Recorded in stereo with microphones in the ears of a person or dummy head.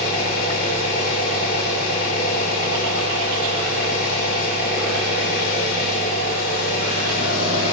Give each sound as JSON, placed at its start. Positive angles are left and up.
{"t": 0.0, "sound": "an engine running", "side_deg": 55, "distance_m": 3.0}